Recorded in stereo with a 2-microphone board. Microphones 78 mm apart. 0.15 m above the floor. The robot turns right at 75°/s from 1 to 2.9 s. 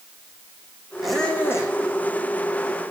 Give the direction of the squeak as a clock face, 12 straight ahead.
12 o'clock.